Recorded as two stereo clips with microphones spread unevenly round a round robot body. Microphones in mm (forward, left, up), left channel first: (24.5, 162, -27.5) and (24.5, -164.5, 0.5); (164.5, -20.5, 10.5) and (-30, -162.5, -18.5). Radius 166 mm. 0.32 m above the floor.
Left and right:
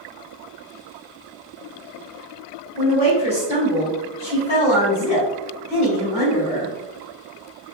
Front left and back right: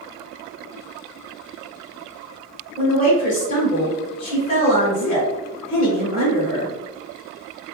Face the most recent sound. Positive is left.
turn(degrees=75)